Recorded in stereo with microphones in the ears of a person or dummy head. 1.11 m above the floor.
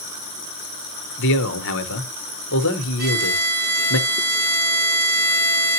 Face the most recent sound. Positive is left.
turn(degrees=-70)  # may be behind; listen again after turning